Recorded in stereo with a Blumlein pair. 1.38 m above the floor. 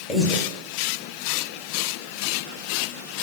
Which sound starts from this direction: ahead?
Breathing, at 0.1 s.